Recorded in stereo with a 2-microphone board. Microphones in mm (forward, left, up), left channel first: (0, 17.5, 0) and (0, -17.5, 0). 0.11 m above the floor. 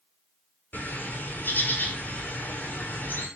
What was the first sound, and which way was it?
A bird, 55° left (ahead or behind).